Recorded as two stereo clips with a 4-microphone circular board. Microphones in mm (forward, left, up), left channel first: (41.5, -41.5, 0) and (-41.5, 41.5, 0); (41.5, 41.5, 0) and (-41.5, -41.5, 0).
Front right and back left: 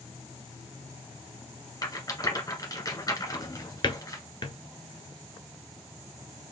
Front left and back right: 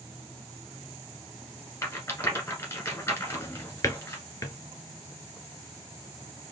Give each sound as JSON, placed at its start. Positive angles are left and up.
{"t": 1.8, "sound": "a rattle", "azimuth_deg": -10, "distance_m": 1.7}
{"t": 3.3, "sound": "a drawer", "azimuth_deg": -10, "distance_m": 0.8}